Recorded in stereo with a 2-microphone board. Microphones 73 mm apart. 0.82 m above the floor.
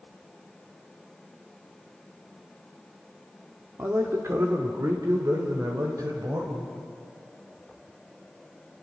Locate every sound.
3.8 s a man speaking: 35° right (ahead or behind), 1.5 m; by 6.7 s 55° right (ahead or behind), 3.5 m